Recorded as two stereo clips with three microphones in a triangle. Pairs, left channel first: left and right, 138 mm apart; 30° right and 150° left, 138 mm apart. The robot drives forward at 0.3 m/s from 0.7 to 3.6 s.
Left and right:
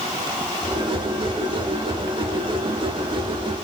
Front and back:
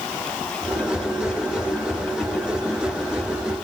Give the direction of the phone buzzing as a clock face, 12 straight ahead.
No phone buzzing in this recording.